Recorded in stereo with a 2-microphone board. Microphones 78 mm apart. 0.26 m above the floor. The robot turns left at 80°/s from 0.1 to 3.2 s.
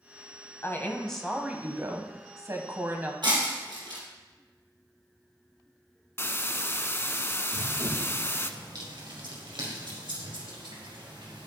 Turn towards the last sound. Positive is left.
turn(degrees=-85)